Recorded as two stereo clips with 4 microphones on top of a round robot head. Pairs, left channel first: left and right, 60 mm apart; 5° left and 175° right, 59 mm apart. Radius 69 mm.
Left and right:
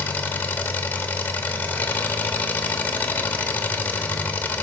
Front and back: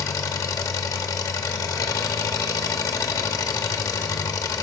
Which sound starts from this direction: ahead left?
An engine running, at 0.0 s.